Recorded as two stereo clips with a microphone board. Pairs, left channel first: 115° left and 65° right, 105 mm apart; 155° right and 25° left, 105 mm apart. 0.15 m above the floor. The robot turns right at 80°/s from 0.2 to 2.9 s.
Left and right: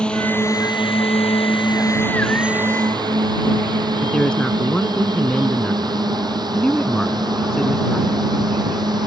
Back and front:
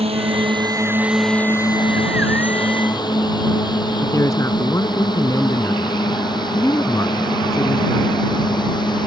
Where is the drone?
30° left; by 9.1 s 115° right.